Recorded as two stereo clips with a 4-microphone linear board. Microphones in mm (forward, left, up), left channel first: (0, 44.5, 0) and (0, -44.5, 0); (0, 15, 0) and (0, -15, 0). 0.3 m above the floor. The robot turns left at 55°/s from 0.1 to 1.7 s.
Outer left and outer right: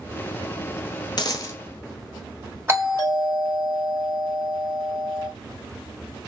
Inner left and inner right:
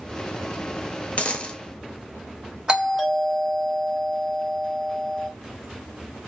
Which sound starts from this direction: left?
A dropped coin, at 1.2 s.